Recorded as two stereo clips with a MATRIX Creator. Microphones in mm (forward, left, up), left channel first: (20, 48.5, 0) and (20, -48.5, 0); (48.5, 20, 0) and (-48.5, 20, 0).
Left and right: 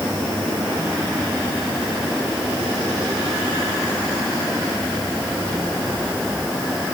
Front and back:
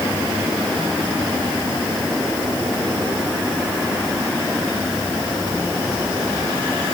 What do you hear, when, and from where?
Only background noise.